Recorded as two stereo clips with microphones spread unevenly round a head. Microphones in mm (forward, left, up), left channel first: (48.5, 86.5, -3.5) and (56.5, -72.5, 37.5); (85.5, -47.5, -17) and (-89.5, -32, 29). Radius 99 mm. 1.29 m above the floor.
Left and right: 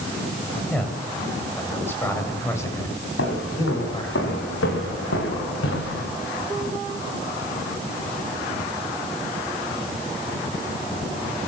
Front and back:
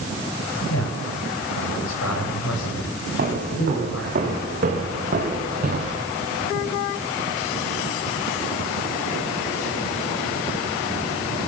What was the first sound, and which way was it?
A man speaking, 10° left.